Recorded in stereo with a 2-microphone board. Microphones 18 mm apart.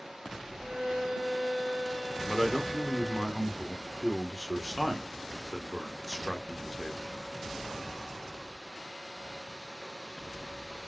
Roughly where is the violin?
Right.